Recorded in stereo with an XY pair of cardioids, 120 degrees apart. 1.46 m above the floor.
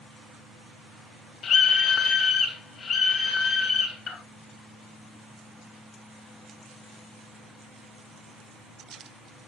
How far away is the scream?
About 0.5 m.